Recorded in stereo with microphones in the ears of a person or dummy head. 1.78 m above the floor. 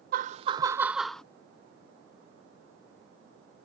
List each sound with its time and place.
0.1 s laughter: 55° right (ahead or behind); by 1.2 s 5° left (ahead or behind)